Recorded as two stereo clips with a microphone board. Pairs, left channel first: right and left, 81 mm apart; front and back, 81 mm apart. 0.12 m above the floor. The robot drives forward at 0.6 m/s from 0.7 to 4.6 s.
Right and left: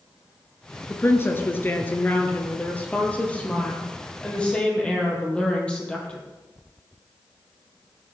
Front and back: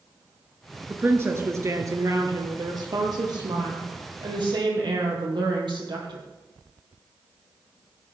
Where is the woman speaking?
130° right, 1.4 m; by 6.2 s 165° right, 3 m.